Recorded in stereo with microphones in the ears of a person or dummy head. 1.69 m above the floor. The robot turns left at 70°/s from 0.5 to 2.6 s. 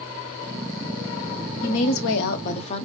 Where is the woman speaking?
105° left, 0.9 m; by 2.9 s 35° left, 0.9 m.